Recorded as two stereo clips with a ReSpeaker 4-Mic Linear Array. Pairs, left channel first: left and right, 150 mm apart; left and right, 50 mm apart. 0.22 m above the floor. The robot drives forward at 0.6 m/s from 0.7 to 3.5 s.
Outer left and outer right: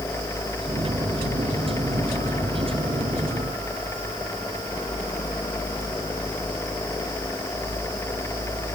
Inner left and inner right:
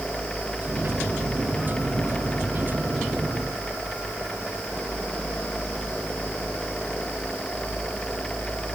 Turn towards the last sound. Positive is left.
No sound to turn to.